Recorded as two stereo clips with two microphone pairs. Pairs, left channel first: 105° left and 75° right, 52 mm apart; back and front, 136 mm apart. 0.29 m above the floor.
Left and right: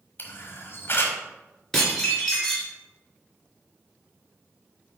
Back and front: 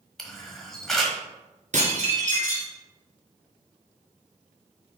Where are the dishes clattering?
25° left, 2.5 m.